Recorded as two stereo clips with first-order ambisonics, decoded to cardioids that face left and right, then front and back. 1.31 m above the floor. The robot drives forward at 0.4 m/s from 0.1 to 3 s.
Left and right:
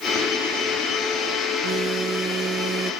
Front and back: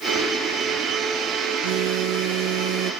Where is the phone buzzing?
155° right; by 2.9 s 160° right.